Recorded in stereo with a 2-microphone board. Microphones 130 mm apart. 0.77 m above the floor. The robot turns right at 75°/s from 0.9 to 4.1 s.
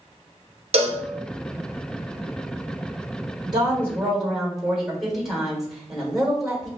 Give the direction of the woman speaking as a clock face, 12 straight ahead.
2 o'clock.